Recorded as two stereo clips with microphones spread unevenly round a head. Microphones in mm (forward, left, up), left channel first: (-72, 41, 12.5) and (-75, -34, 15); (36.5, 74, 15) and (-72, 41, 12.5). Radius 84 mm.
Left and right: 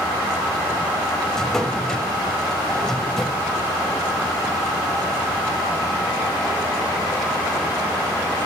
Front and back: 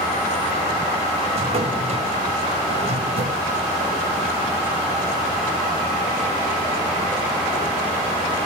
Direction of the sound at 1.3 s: 170° left.